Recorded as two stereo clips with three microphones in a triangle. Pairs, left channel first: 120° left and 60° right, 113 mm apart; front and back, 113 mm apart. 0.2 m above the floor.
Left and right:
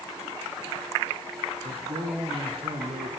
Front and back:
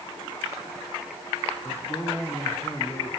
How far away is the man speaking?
About 3 m.